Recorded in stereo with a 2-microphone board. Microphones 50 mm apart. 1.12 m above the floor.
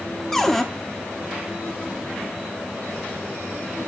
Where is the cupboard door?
5° left (ahead or behind), 0.7 m.